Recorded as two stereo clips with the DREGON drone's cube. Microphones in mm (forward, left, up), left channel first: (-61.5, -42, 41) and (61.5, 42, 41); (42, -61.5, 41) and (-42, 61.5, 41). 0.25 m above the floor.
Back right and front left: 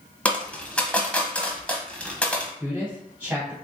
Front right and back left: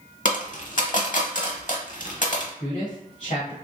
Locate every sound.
0.2 s a dropped coin: 65° right, 0.7 m
2.6 s a man speaking: 40° right, 1.5 m